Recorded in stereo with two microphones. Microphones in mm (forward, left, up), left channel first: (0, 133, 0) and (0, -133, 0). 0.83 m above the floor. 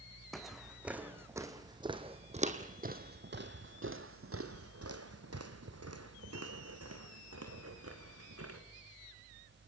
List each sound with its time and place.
0.3 s footsteps: centre (ahead or behind), 2 m; by 8.6 s 60° right (ahead or behind), 3 m